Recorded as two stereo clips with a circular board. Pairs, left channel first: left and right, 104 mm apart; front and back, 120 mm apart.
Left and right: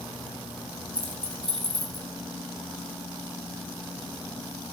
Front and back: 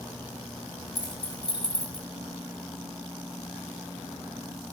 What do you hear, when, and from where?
0.9 s keys jangling: 55° right, 3 m; by 2.1 s 45° right, 3.5 m